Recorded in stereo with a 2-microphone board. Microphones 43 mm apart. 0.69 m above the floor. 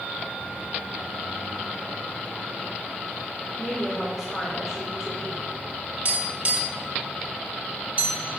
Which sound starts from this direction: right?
Tapping, at 6.0 s.